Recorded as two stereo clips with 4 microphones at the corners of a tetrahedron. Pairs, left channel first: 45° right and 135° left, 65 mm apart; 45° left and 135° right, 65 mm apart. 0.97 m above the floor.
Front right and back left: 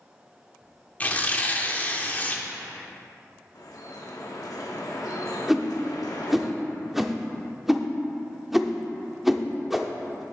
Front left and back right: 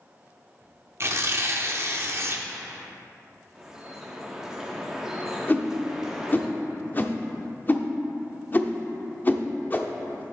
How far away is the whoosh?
About 0.6 m.